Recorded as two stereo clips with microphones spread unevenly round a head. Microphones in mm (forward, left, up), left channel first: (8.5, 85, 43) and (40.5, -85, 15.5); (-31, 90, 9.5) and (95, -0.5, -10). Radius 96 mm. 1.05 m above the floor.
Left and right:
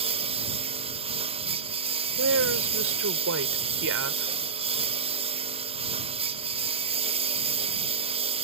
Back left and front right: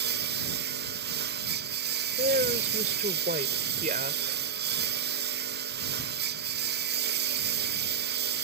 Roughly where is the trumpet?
No trumpet in this recording.